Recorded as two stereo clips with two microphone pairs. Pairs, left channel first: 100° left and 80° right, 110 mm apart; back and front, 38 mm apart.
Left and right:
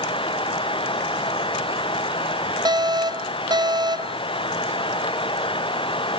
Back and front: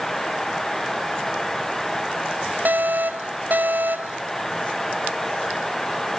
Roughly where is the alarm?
Ahead right.